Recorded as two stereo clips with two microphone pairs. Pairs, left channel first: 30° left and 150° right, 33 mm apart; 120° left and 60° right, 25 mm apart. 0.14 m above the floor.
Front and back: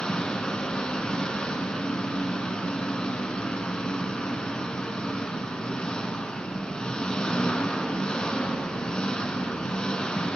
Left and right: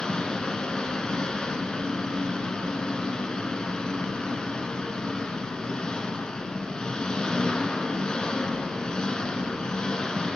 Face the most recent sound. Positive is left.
turn(degrees=80)